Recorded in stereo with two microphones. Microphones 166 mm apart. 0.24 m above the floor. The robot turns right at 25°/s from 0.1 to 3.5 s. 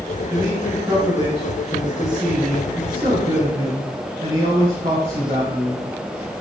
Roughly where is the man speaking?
Behind.